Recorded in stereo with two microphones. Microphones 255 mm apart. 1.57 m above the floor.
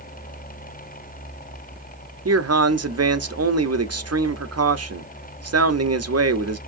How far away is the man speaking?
About 0.7 m.